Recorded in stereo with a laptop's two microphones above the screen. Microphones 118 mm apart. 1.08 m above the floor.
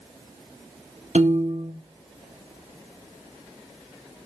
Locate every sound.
1.1 s a piano: 70° right (ahead or behind), 1.1 m